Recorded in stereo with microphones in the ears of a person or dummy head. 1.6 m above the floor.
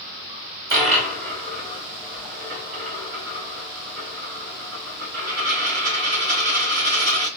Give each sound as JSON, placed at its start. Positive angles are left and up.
{"t": 0.7, "sound": "a dropped coin", "side_deg": -15, "distance_m": 1.9}